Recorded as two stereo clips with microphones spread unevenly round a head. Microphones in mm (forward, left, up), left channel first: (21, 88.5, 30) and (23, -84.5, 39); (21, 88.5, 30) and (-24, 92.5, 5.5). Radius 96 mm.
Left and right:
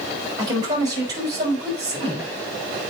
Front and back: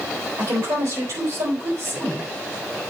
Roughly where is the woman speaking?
Behind.